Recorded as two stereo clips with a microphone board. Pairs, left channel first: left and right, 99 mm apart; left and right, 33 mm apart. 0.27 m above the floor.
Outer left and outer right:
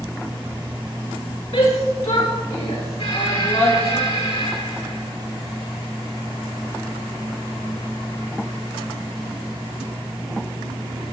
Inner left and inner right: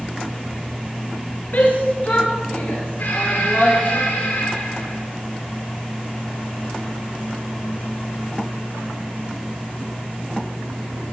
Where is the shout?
80° left, 6.5 m; by 4.0 s 75° left (ahead or behind), 8 m.